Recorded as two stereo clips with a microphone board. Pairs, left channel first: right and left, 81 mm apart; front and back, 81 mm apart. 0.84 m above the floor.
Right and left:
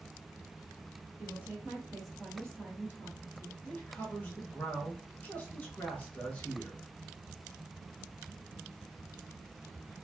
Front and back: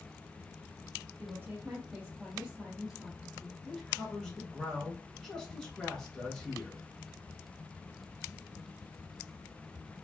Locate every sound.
1.2 s a woman speaking: 140° left, 1.0 m; by 3.5 s 80° right, 1.0 m
3.6 s a man speaking: 70° right, 0.6 m